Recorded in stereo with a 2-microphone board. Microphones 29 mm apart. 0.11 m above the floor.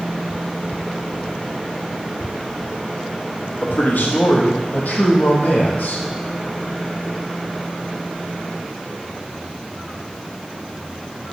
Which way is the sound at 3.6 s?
65° left (ahead or behind).